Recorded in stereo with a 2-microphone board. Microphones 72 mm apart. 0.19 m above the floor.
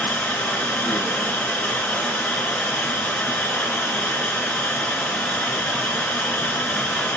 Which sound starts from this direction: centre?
Running water, at 0.0 s.